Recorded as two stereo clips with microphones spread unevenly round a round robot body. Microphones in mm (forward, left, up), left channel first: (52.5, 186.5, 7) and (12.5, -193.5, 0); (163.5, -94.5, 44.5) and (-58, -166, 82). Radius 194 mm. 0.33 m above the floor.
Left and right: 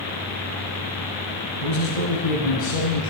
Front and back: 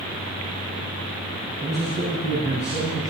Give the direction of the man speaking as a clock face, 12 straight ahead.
8 o'clock.